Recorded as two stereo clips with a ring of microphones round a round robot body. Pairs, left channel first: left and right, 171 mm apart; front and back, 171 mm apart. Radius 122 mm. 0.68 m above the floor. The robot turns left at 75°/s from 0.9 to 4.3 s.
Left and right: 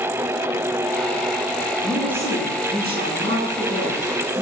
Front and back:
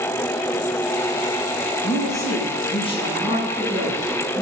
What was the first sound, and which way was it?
A woman speaking, 10° left.